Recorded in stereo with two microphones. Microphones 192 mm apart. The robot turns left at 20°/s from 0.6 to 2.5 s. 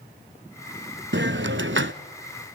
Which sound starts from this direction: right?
A hiss, at 1.1 s.